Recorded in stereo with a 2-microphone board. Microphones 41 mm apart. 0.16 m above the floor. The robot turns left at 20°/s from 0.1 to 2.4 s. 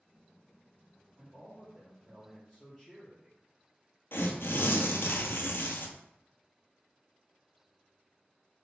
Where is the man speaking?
5° right (ahead or behind), 2.5 m; by 3.4 s 15° left (ahead or behind), 2.5 m.